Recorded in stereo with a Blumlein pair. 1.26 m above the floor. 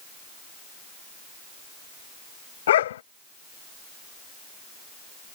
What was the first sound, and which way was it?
A dog barking, 60° left.